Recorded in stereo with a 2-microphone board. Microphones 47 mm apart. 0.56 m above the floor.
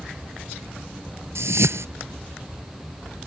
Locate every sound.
1.4 s a whoosh: 70° right (ahead or behind)